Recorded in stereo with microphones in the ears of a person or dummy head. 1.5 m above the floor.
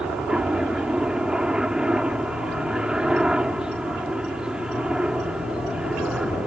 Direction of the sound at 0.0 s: 5° right (ahead or behind).